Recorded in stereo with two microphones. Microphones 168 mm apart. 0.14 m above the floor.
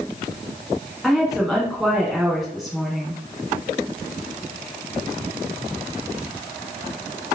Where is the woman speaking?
Centre (ahead or behind), 1.0 m.